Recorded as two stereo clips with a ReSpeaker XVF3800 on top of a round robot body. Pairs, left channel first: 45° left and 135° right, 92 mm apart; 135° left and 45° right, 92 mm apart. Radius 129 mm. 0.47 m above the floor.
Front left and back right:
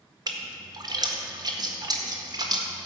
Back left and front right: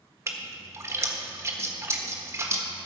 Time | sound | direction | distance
0.3 | a splash | 100° right | 1.6 m